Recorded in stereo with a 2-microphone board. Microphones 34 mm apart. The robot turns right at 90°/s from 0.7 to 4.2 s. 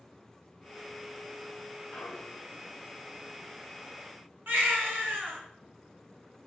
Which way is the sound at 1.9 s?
50° left.